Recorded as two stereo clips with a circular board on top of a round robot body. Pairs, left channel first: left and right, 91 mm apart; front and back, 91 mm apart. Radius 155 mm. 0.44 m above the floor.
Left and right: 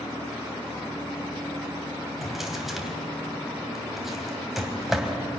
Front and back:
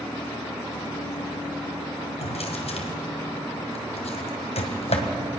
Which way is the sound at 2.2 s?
Straight ahead.